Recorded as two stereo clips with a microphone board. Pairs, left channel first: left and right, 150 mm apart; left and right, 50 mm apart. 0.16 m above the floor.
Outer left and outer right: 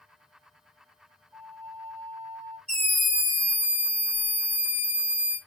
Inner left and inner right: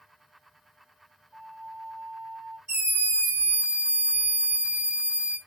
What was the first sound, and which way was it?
A flute, 10° right (ahead or behind).